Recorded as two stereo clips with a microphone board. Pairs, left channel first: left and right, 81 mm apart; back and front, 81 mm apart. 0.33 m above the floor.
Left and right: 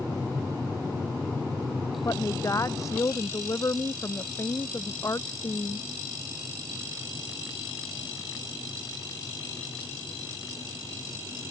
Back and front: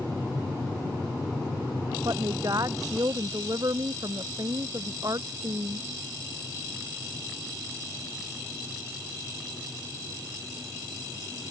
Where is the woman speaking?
40° left.